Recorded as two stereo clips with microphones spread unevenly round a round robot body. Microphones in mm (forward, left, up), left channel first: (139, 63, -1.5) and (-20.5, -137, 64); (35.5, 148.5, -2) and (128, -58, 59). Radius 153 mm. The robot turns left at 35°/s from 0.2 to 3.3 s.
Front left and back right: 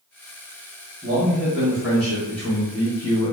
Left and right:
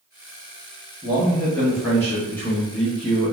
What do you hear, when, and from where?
1.0 s a man speaking: 135° left, 1.0 m; by 3.3 s 55° left, 1.0 m